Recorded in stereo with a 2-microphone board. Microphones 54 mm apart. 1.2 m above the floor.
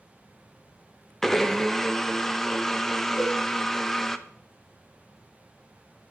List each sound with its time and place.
1.2 s a blender: 10° left (ahead or behind), 0.7 m
3.2 s a cowbell: 75° left (ahead or behind), 6.5 m